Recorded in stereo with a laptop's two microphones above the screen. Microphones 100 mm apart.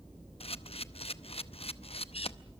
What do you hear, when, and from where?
0.4 s a camera shutter: 75° left (ahead or behind), 0.7 m